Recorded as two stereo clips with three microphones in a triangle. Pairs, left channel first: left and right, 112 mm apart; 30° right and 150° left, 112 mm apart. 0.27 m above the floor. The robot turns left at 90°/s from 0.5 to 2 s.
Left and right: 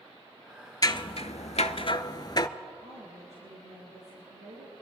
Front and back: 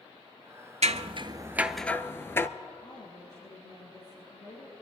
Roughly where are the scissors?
Behind left.